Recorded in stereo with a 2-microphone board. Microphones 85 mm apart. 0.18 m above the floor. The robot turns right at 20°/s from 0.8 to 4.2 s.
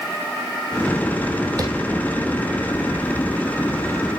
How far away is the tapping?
About 2.5 m.